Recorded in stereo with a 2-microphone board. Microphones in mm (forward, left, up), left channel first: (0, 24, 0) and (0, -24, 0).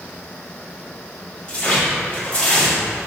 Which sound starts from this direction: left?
Tearing paper, at 1.5 s.